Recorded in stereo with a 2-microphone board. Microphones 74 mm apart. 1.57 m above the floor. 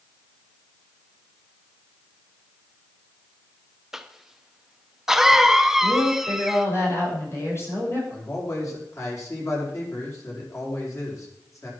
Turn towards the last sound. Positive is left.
turn(degrees=45)  # may be behind; listen again after turning